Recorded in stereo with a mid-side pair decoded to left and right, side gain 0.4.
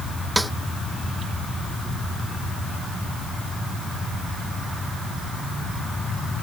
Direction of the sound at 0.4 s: 5° right.